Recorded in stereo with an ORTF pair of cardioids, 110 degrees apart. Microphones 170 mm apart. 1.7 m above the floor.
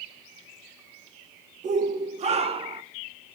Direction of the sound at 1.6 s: 45° right.